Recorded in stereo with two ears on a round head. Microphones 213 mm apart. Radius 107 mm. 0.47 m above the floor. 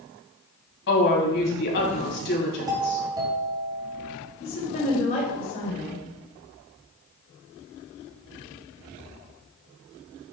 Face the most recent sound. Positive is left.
turn(degrees=40)  # may be behind; listen again after turning